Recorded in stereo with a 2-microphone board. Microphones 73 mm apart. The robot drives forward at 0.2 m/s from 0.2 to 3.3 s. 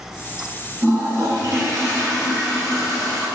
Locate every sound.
0.8 s a toilet flushing: 40° right (ahead or behind), 1.7 m; by 3.3 s 35° right (ahead or behind), 2.0 m